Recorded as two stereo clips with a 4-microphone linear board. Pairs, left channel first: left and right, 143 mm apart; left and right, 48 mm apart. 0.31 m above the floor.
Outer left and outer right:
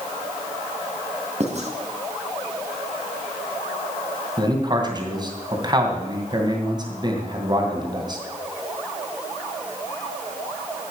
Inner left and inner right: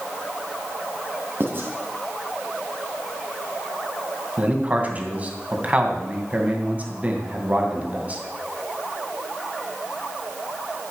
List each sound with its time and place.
1.4 s writing: 50° right (ahead or behind), 2.5 m
4.4 s a man speaking: 30° right (ahead or behind), 2.5 m